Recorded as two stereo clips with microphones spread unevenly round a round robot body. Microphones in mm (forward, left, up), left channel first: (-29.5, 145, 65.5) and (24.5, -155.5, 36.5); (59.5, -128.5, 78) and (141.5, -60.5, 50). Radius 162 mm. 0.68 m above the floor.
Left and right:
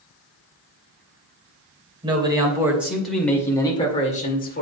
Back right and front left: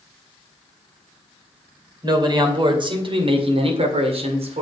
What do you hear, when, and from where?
2.0 s a man speaking: 5° right, 2.5 m; by 4.6 s 40° left, 1.9 m